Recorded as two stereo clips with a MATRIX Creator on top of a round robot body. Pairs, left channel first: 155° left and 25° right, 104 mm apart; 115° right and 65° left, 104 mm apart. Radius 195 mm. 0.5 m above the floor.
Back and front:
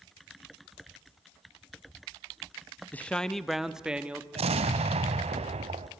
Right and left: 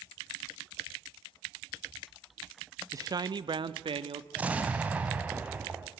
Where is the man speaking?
95° left, 0.8 m; by 4.2 s 55° left, 1.4 m.